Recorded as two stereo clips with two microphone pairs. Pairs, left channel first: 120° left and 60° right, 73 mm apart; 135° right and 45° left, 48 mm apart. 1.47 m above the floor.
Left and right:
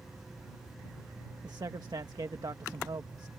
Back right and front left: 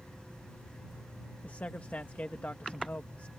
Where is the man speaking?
80° right.